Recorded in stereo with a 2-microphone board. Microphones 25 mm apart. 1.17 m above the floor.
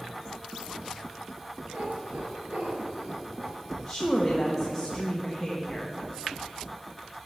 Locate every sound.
1.7 s a cat meowing: 65° right (ahead or behind), 2.5 m; by 3.5 s 75° right (ahead or behind), 3.5 m
3.9 s a woman speaking: 10° left (ahead or behind), 1.2 m